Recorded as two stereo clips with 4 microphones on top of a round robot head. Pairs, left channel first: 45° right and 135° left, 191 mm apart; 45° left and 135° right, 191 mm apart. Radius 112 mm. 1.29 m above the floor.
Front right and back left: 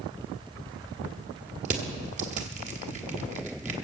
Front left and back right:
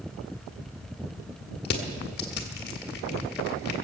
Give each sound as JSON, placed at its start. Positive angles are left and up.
{"t": 1.6, "sound": "crushing", "azimuth_deg": 85, "distance_m": 1.5}